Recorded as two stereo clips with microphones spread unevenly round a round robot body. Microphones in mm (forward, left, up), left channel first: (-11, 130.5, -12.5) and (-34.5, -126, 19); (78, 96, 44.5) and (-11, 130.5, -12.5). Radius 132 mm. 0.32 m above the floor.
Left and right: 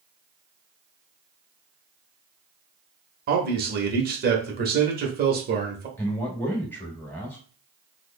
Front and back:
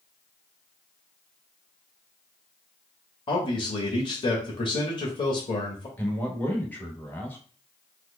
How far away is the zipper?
I don't hear a zipper.